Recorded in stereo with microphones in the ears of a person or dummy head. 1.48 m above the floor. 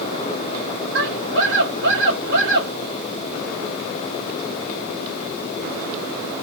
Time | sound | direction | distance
0.9 | a scream | 60° right (ahead or behind) | 4 m